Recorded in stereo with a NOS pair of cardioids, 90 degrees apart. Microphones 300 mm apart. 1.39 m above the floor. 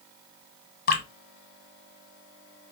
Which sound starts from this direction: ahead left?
Dripping, at 0.9 s.